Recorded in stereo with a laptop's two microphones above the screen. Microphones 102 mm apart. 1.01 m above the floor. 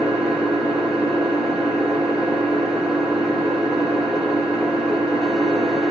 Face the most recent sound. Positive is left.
turn(degrees=-5)  # may be behind; listen again after turning